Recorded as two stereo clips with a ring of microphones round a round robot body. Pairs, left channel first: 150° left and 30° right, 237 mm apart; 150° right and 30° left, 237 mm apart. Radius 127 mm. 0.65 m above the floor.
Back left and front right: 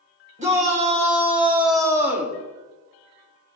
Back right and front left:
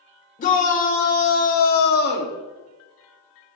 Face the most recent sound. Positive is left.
turn(degrees=-120)